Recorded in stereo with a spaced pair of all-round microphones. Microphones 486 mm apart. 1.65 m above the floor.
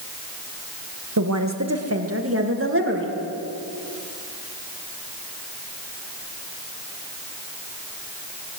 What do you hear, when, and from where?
1.2 s a woman speaking: 40° right (ahead or behind), 1.5 m; by 3.1 s 25° right (ahead or behind), 2.5 m